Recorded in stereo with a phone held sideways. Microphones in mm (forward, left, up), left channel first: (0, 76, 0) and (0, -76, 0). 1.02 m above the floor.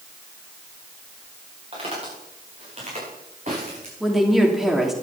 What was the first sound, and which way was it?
Footsteps, 45° right (ahead or behind).